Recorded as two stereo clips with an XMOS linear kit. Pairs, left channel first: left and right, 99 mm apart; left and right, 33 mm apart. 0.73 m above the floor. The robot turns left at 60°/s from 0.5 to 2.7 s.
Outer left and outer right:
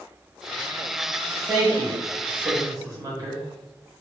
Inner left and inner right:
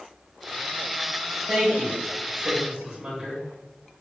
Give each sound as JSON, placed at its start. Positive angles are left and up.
{"t": 1.5, "sound": "a woman speaking", "side_deg": -35, "distance_m": 1.2}